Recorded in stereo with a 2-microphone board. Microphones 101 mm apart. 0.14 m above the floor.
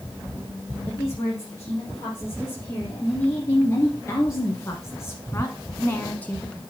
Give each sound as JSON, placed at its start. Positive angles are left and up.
{"t": 0.9, "sound": "a woman speaking", "side_deg": 25, "distance_m": 3.5}